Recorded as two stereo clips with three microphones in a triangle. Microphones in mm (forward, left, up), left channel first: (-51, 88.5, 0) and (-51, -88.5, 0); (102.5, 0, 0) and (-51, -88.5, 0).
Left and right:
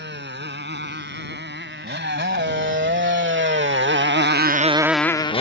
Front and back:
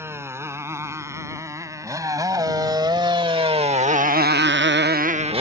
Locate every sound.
0.0 s a motorcycle: 75° right; by 5.4 s 150° left